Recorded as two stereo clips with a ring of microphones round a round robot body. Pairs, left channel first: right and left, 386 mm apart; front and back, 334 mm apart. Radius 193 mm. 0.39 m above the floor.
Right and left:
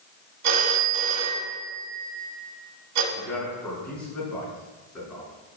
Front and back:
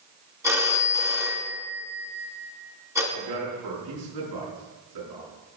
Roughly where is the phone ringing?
Left.